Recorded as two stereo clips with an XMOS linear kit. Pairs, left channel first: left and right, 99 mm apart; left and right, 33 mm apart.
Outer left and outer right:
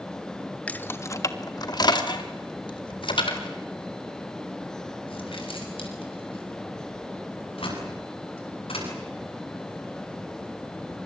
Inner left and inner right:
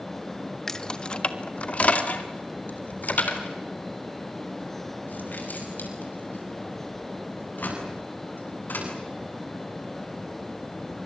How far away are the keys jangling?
About 1.1 m.